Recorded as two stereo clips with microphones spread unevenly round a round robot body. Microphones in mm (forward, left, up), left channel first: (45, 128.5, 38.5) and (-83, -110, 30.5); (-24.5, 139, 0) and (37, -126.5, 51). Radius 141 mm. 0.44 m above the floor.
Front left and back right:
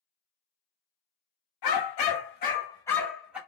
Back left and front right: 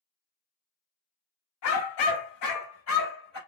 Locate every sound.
1.6 s a dog barking: 70° left, 1.0 m; by 3.4 s 155° left, 1.5 m